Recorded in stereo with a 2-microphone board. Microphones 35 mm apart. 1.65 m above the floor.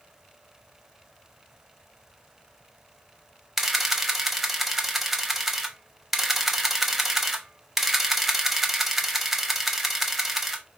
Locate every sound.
3.6 s a camera shutter: 5° right (ahead or behind), 0.9 m